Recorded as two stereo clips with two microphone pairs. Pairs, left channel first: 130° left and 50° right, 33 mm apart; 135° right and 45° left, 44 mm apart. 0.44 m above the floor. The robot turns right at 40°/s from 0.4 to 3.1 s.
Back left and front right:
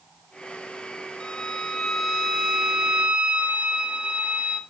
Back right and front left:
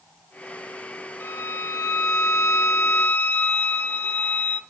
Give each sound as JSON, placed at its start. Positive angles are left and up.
{"t": 1.2, "sound": "a violin", "azimuth_deg": -170, "distance_m": 1.4}